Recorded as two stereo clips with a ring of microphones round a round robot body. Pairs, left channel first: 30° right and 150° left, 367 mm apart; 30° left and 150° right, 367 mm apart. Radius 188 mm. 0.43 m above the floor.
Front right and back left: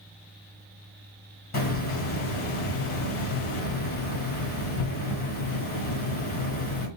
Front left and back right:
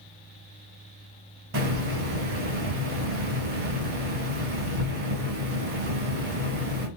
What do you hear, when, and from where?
1.5 s a hiss: 95° right, 1.9 m